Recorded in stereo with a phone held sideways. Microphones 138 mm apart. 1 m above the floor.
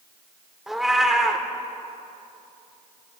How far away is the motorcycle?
No motorcycle in this recording.